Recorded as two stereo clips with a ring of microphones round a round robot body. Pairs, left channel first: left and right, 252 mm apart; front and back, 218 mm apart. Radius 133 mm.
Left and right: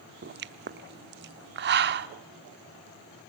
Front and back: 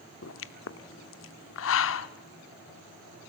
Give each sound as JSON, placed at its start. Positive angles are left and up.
{"t": 0.2, "sound": "a pop", "azimuth_deg": -40, "distance_m": 0.8}